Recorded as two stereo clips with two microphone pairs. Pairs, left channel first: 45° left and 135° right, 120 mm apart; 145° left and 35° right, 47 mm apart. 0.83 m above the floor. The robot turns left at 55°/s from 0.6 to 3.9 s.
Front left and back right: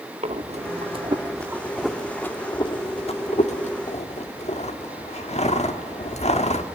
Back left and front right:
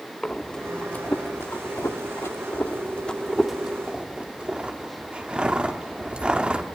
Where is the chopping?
No chopping in this recording.